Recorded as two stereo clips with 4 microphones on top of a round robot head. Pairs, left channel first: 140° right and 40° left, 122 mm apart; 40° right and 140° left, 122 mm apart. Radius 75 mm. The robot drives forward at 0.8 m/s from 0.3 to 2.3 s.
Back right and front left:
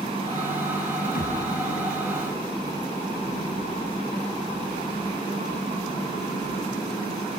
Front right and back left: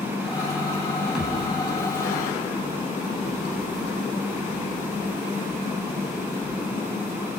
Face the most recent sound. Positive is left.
turn(degrees=-135)